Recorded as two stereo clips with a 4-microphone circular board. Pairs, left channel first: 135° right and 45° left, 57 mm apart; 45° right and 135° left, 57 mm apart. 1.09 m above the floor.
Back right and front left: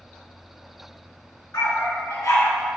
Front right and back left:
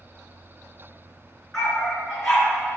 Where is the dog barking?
130° right, 4 m.